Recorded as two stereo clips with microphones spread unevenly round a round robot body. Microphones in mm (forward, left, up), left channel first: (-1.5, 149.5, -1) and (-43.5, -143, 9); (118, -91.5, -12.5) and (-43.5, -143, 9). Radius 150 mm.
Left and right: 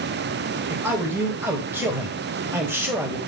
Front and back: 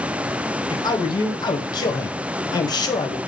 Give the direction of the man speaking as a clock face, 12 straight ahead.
1 o'clock.